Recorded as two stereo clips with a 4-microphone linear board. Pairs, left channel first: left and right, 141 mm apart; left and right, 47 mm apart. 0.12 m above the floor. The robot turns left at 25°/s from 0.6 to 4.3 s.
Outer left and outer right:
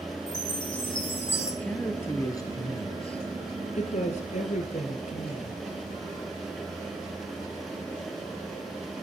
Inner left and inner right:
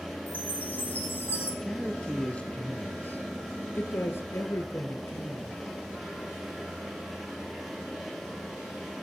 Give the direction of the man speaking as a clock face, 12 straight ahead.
6 o'clock.